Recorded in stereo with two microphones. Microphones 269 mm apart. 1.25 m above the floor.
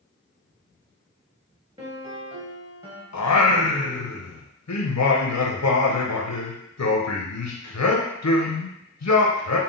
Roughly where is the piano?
Right.